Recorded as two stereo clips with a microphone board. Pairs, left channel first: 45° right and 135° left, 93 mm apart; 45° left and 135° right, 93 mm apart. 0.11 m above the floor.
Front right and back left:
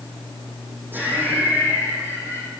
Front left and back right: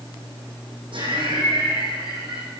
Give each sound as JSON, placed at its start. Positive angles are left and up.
{"t": 0.9, "sound": "laughter", "azimuth_deg": -155, "distance_m": 6.5}